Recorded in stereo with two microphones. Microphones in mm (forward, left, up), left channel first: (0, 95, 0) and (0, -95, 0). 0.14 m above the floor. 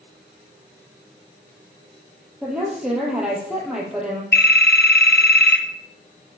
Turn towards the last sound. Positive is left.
turn(degrees=60)  # may be behind; listen again after turning